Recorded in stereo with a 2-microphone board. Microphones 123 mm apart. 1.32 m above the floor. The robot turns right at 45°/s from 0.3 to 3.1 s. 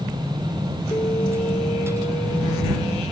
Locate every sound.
0.9 s an alarm: 35° left; by 3.0 s 130° left